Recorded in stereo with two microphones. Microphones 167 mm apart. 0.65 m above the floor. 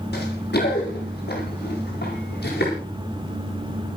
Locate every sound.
0.1 s running footsteps: 80° left, 9 m; by 2.7 s 85° left, 12 m